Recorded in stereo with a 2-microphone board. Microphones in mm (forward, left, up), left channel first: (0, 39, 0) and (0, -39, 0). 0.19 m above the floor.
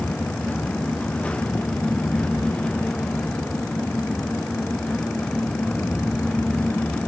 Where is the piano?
No piano in this recording.